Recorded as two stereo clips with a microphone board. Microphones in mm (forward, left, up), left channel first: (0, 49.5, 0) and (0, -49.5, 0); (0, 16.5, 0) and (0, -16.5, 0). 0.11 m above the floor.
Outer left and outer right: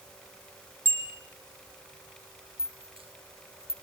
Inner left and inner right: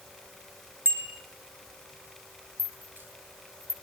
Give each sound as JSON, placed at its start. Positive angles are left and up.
{"t": 0.8, "sound": "a bicycle bell", "side_deg": -55, "distance_m": 4.5}
{"t": 2.6, "sound": "a rattle", "side_deg": -70, "distance_m": 1.8}